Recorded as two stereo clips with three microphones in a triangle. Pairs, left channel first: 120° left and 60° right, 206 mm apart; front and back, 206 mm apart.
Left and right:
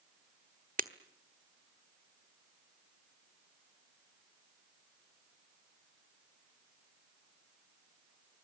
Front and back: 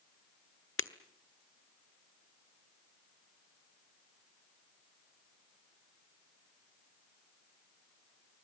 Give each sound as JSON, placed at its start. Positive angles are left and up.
{"t": 0.8, "sound": "breaking glass", "azimuth_deg": -10, "distance_m": 1.2}